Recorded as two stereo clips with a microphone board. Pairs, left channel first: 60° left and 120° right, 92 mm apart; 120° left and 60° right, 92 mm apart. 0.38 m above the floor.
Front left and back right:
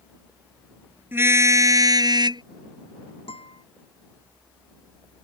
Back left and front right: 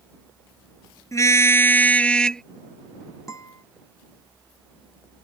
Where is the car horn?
175° left; by 2.4 s 155° right.